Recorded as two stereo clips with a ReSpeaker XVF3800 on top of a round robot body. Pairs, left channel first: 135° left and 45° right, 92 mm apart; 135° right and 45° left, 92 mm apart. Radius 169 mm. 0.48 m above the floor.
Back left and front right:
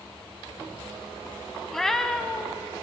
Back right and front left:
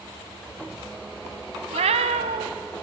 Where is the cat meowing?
50° left, 0.9 m.